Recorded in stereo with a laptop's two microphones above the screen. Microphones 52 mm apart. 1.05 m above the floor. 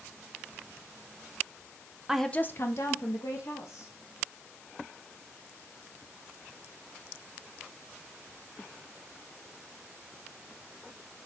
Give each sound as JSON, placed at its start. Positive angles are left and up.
{"t": 2.1, "sound": "a woman speaking", "side_deg": -15, "distance_m": 0.6}